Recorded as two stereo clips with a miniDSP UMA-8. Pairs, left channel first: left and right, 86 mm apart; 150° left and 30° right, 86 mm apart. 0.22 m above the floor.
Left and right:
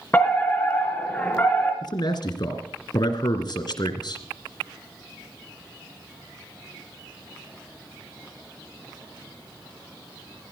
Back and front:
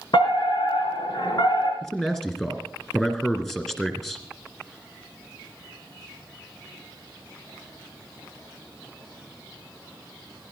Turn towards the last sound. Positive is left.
turn(degrees=65)